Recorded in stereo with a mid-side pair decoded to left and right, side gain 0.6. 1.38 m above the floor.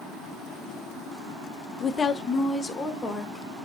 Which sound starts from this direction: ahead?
A woman speaking, at 1.8 s.